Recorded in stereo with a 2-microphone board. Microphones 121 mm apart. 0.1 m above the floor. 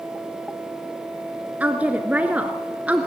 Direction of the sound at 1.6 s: 10° right (ahead or behind).